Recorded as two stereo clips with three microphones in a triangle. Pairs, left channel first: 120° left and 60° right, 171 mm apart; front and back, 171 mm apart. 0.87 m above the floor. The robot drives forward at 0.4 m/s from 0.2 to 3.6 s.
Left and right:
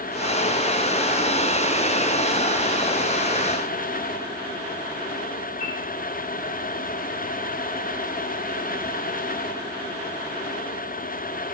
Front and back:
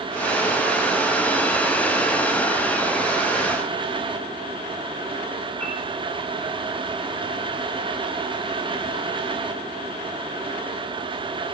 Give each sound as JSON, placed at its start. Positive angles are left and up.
{"t": 5.6, "sound": "a piano", "azimuth_deg": 80, "distance_m": 3.5}